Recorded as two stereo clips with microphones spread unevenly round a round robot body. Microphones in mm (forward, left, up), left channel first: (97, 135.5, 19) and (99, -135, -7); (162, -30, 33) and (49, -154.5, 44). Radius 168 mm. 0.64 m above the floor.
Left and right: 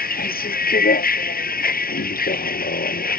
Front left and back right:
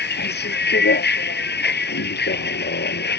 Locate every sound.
0.0 s a vehicle: 35° left